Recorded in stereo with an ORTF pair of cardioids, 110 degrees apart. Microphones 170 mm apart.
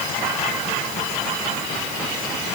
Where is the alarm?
No alarm in this recording.